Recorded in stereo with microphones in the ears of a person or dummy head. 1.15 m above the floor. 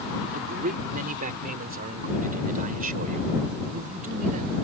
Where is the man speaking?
45° right (ahead or behind).